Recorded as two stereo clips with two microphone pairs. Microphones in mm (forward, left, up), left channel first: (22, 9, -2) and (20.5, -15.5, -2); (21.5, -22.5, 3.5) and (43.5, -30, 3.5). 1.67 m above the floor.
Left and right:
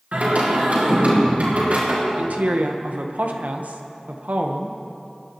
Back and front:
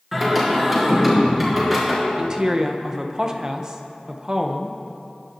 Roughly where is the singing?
Right.